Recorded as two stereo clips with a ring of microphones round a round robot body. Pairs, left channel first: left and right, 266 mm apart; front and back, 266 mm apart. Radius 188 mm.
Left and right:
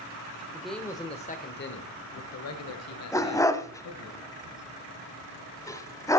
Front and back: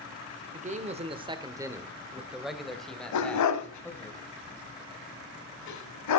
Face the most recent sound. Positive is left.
turn(degrees=10)